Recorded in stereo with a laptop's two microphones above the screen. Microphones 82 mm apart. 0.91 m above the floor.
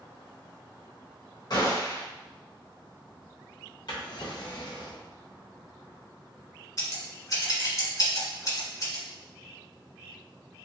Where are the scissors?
40° left (ahead or behind), 1.3 m.